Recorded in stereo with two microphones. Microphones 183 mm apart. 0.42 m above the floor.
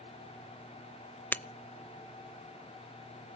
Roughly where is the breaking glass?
Centre.